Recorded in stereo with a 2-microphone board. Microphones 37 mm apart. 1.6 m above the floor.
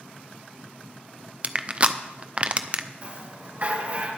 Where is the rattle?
50° right (ahead or behind), 5 m.